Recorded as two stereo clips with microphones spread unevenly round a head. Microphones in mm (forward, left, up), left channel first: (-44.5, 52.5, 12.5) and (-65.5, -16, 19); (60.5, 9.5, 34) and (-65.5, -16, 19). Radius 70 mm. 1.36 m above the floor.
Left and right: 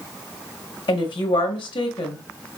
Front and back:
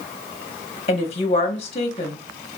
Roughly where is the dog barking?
No dog barking in this recording.